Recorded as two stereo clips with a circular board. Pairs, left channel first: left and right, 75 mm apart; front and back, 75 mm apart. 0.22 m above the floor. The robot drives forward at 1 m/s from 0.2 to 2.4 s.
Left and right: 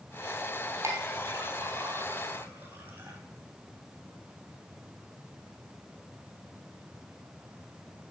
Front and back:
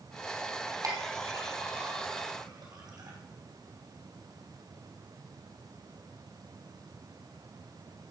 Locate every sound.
0.8 s a clink: 135° right, 3 m; by 3.2 s 150° right, 4.5 m